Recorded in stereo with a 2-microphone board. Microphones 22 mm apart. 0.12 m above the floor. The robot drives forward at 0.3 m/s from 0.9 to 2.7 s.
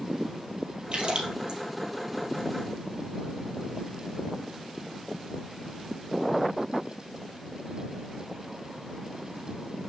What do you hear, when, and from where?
0.9 s a splash: 60° right (ahead or behind), 2.5 m; by 1.6 s 55° right (ahead or behind), 2.5 m